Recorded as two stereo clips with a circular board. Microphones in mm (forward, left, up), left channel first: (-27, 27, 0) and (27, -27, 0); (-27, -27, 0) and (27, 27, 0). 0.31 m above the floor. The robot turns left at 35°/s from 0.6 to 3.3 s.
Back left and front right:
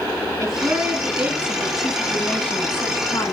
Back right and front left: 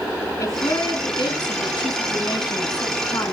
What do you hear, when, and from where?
0.4 s a woman speaking: 90° right, 3 m; by 3.3 s 175° left, 3 m